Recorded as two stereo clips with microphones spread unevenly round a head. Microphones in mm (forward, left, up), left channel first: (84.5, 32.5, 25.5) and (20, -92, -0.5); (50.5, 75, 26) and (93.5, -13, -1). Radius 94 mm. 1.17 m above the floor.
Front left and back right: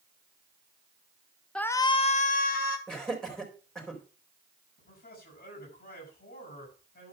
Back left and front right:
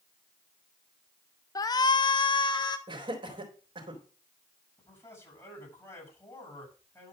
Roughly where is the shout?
Behind.